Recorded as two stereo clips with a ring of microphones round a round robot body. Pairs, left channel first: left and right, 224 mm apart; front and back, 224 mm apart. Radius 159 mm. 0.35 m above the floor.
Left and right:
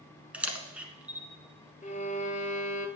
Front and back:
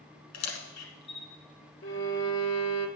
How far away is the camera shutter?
About 1.3 m.